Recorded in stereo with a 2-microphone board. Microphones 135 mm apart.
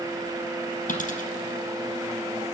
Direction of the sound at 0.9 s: 65° left (ahead or behind).